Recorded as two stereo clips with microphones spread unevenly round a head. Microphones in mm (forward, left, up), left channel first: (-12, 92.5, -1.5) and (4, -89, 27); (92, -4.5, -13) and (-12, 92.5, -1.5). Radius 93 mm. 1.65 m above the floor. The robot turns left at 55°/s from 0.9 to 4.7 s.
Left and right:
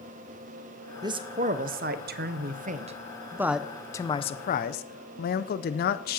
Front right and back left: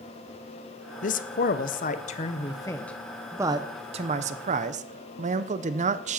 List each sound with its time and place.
1.0 s a man speaking: 25° right, 0.7 m; by 6.2 s 135° left, 0.7 m